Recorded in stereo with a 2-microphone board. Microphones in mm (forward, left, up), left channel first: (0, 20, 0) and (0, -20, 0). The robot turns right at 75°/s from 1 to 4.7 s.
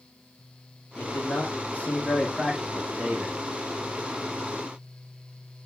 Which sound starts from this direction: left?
A man speaking, at 1.0 s.